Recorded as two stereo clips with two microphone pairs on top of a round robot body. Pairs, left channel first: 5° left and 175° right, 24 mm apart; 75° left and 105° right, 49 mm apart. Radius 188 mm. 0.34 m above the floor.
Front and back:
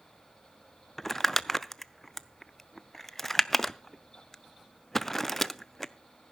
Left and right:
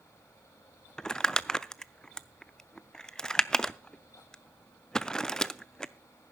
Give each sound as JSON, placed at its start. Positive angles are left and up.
{"t": 1.0, "sound": "crumpling", "azimuth_deg": 25, "distance_m": 0.8}